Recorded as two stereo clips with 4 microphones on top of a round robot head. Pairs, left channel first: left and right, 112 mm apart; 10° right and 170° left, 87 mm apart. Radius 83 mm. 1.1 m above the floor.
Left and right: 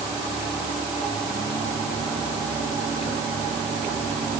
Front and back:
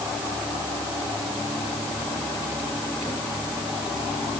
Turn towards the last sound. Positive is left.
No sound to turn to.